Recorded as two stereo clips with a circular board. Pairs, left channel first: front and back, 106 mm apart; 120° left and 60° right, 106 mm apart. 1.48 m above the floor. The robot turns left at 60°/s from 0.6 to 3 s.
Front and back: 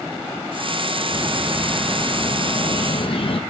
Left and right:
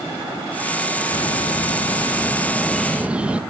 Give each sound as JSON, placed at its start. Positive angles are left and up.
{"t": 1.1, "sound": "a bird", "azimuth_deg": 130, "distance_m": 1.0}